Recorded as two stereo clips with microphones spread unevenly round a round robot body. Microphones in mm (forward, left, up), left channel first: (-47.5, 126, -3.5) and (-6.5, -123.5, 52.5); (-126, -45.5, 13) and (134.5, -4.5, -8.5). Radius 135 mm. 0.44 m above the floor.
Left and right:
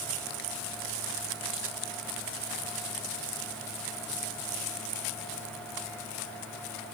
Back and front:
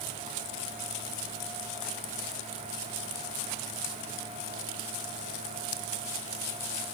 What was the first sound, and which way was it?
Only background noise.